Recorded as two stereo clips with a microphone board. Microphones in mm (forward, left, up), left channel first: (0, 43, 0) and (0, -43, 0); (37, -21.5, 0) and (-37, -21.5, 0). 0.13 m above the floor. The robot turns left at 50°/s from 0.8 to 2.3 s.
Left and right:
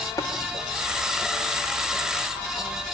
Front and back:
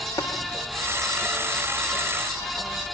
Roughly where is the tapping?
Ahead left.